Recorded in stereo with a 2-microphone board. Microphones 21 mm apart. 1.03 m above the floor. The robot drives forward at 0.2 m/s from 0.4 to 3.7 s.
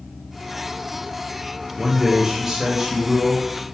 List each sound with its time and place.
1.8 s a man speaking: 25° right (ahead or behind), 0.5 m; by 3.5 s 15° right (ahead or behind), 0.8 m